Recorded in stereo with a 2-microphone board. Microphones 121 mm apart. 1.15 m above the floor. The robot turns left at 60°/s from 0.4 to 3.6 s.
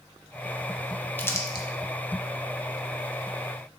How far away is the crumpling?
About 1.0 m.